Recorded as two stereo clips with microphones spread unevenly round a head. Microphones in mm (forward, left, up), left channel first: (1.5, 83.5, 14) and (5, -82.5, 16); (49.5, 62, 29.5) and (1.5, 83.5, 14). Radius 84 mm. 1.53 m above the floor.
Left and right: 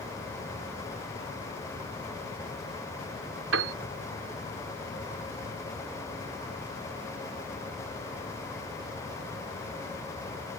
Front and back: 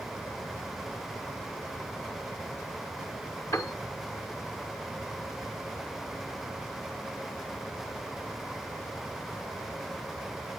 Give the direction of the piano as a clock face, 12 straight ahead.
3 o'clock.